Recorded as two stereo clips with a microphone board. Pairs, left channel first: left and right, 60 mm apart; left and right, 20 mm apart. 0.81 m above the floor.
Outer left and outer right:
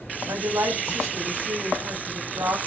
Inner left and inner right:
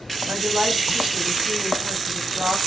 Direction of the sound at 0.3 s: 80° right.